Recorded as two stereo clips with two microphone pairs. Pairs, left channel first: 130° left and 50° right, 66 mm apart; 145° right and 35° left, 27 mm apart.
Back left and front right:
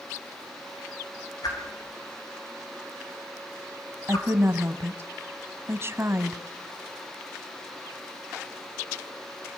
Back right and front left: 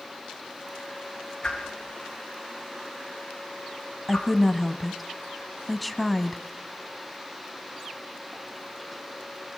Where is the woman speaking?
60° right, 1.5 m.